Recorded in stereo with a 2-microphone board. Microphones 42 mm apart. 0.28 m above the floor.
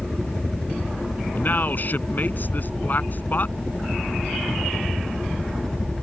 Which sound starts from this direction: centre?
A helicopter, at 0.0 s.